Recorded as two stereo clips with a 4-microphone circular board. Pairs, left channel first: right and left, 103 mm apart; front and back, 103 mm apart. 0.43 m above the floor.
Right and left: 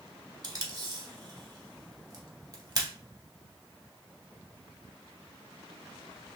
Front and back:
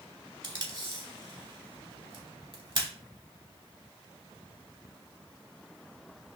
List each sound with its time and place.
0.4 s tape being pulled: 140° left, 0.8 m